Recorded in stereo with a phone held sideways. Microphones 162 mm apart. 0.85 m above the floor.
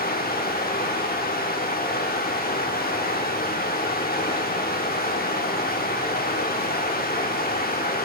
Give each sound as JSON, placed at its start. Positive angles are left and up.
{"t": 0.0, "sound": "running water", "side_deg": 70, "distance_m": 0.8}